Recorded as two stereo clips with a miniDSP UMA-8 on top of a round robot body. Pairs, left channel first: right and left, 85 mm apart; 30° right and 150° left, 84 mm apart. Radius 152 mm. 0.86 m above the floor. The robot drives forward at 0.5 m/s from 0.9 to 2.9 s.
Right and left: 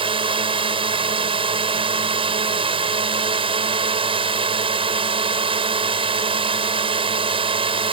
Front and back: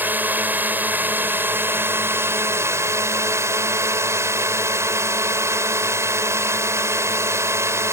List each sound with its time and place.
0.0 s a drone: 80° left; by 7.9 s 90° left